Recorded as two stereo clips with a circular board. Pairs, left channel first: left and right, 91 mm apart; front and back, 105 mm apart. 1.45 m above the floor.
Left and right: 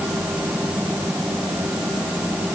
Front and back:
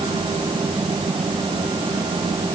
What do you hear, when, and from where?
Only background noise.